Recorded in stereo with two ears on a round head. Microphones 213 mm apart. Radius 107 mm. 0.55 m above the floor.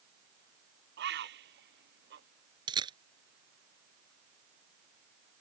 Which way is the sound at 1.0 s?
45° right (ahead or behind).